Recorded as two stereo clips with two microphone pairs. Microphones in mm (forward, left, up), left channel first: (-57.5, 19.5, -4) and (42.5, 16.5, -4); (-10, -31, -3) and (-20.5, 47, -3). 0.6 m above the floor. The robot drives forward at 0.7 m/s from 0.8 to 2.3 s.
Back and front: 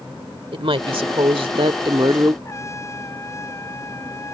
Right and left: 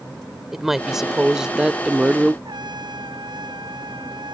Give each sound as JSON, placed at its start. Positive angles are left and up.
{"t": 0.5, "sound": "a woman speaking", "azimuth_deg": 15}
{"t": 2.5, "sound": "a trumpet", "azimuth_deg": 120}